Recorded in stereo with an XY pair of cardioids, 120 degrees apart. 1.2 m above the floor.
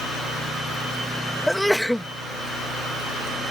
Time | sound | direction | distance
1.5 | a sneeze | straight ahead | ?